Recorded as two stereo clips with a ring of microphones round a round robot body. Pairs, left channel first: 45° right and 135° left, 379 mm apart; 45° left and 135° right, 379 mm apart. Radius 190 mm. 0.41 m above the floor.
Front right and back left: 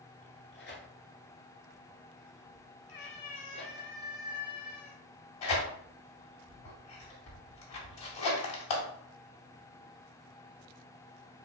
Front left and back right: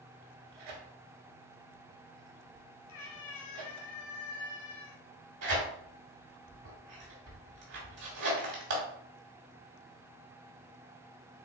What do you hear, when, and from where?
0.2 s tearing paper: 105° right, 1.5 m
2.9 s a cat meowing: 5° right, 1.3 m
5.4 s tearing paper: 85° right, 1.9 m